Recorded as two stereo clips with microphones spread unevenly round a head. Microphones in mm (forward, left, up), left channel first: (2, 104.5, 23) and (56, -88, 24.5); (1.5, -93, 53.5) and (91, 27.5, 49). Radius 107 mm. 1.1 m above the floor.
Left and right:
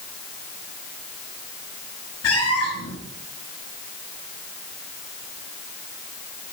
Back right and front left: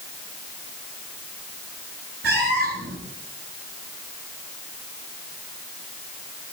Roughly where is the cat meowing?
Left.